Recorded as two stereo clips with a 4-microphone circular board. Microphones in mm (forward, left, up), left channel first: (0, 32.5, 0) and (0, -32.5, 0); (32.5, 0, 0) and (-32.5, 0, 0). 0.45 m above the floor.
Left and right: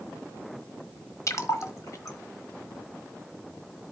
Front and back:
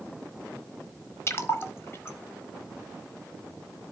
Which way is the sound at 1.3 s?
50° left.